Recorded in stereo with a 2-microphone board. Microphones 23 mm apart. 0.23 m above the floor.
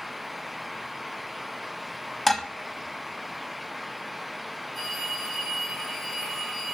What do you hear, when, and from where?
2.3 s dishes clattering: 10° left (ahead or behind), 0.8 m
4.7 s a phone ringing: 5° left (ahead or behind), 5.5 m